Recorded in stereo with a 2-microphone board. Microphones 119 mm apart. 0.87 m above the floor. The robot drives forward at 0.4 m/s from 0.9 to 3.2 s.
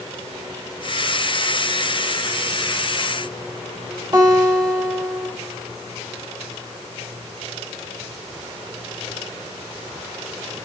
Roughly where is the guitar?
Right.